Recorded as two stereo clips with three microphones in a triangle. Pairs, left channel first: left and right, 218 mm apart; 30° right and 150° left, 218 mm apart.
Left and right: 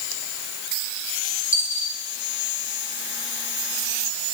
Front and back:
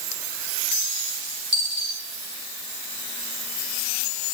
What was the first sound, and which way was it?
A dropped coin, 110° left.